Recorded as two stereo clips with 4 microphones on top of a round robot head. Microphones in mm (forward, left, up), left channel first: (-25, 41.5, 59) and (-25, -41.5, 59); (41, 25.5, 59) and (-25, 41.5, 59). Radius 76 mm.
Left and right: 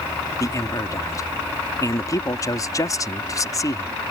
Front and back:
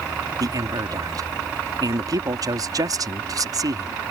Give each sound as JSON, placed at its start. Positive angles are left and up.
{"t": 0.4, "sound": "a man speaking", "azimuth_deg": 140}